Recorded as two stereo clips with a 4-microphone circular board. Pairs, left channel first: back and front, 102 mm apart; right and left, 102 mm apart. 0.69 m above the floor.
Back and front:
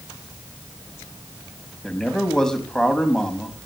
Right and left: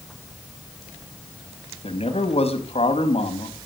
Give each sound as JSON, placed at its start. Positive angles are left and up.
{"t": 1.8, "sound": "a man speaking", "azimuth_deg": -95, "distance_m": 4.5}